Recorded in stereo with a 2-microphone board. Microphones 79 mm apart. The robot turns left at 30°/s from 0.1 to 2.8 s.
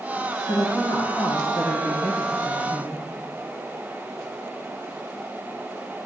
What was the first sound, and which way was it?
A woman speaking, 115° left.